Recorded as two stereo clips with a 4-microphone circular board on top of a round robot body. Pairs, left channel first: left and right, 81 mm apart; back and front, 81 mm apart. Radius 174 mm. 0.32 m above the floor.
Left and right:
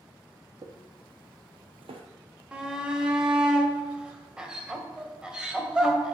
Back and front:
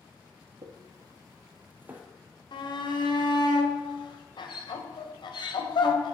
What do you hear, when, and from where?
0.6 s footsteps: 45° right, 1.3 m; by 2.0 s 75° right, 0.9 m
2.5 s a shout: 170° right, 2.5 m